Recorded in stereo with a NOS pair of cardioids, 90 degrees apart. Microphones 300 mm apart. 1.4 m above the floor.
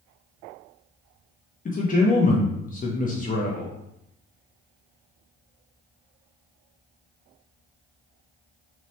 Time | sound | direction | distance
1.6 | a man speaking | 25° left | 0.6 m